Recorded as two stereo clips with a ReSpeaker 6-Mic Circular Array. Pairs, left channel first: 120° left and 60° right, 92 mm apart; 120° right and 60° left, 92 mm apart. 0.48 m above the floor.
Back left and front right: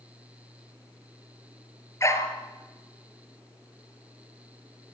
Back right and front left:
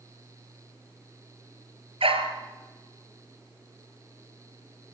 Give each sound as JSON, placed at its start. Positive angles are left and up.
{"t": 2.0, "sound": "a dog barking", "azimuth_deg": 65, "distance_m": 2.5}